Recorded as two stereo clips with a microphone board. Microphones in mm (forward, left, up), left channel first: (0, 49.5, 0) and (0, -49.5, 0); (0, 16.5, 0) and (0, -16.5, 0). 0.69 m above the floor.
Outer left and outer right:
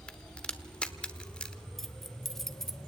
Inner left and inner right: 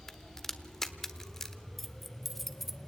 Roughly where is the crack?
Centre.